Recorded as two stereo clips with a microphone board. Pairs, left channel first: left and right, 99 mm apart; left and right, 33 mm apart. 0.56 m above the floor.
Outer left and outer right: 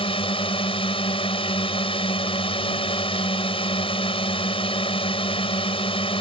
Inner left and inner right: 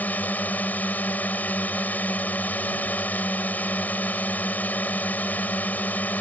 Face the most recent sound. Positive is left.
turn(degrees=60)  # may be behind; listen again after turning